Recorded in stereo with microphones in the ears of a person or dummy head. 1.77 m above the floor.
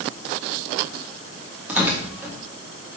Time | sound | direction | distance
1.7 | tearing paper | 5° right (ahead or behind) | 1.0 m